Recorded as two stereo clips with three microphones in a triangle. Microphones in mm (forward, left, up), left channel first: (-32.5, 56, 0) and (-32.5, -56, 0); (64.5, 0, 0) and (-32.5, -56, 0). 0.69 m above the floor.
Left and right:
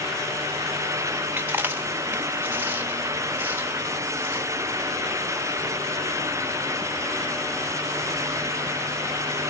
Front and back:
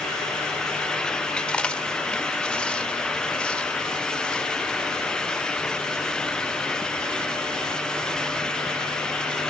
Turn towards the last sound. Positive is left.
turn(degrees=-45)